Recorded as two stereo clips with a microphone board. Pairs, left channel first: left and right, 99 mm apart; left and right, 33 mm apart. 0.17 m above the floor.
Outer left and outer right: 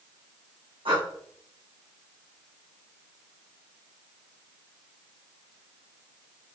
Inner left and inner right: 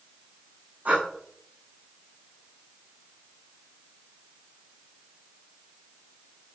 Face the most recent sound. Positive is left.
turn(degrees=-60)  # may be behind; listen again after turning